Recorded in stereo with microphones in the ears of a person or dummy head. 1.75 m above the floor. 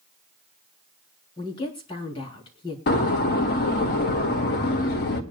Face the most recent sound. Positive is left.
turn(degrees=50)  # may be behind; listen again after turning